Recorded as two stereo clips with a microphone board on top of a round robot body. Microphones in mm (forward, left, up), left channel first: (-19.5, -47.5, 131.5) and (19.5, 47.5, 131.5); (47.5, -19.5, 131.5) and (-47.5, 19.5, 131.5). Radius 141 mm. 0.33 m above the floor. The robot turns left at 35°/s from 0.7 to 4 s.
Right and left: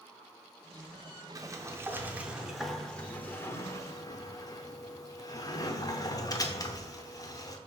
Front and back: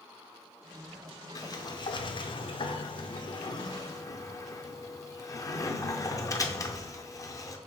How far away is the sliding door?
About 0.7 m.